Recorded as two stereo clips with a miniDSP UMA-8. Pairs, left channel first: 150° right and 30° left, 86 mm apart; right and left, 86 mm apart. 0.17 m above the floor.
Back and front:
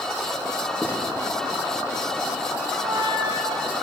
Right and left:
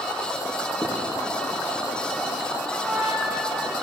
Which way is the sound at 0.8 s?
50° right.